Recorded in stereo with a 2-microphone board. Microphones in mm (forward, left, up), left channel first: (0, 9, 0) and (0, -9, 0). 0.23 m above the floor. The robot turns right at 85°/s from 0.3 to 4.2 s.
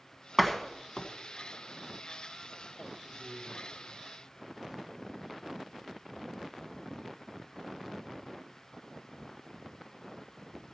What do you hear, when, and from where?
0.4 s a door slam: 10° right (ahead or behind), 1.2 m; by 1.1 s 40° left (ahead or behind), 1.2 m
3.0 s a man speaking: 130° right, 3 m; by 5.4 s 25° right, 3 m